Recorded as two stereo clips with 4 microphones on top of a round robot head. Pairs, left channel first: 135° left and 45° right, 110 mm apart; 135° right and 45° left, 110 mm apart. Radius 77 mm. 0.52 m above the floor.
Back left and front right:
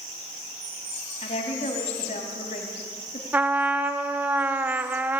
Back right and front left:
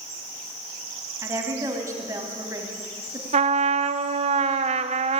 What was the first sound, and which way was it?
A woman speaking, 110° left.